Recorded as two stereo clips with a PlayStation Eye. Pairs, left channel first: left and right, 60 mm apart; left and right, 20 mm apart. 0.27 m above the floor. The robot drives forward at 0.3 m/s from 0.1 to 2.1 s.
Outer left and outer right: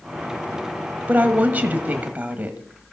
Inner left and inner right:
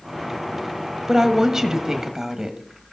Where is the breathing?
No breathing in this recording.